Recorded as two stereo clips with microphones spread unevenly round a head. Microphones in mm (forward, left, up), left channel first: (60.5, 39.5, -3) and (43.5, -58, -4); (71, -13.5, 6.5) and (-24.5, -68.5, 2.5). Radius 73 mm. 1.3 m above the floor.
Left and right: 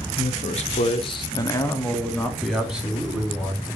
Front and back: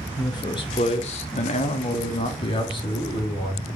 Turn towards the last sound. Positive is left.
turn(degrees=-25)